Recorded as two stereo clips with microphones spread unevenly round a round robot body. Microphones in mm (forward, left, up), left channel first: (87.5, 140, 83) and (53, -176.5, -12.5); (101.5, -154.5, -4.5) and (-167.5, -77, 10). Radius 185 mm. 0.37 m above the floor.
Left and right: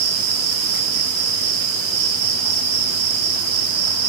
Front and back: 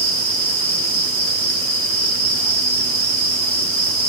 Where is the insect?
125° right, 7.5 m.